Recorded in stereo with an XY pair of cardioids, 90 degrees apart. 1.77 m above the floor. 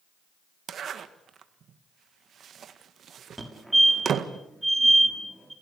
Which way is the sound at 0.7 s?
65° right.